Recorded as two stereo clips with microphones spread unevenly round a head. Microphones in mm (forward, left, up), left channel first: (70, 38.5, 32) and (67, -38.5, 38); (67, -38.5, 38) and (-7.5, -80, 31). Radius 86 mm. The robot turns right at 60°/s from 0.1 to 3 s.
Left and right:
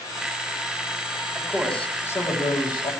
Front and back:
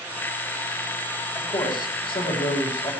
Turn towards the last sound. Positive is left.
turn(degrees=90)